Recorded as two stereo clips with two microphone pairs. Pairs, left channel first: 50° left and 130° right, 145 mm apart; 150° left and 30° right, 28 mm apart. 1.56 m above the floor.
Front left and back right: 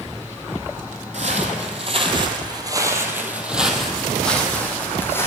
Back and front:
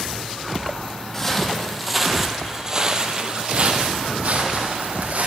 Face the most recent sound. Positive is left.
turn(degrees=-20)